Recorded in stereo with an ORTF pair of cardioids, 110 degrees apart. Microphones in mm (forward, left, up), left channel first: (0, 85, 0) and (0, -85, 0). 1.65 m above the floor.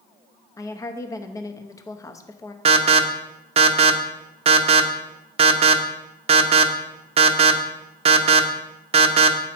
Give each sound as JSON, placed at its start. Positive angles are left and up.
{"t": 0.6, "sound": "a woman speaking", "azimuth_deg": 20, "distance_m": 0.8}
{"t": 2.6, "sound": "an alarm", "azimuth_deg": -35, "distance_m": 0.8}